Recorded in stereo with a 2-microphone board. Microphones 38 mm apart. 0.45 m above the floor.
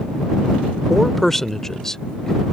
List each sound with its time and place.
0.9 s a man speaking: centre (ahead or behind); by 2.4 s 15° left (ahead or behind)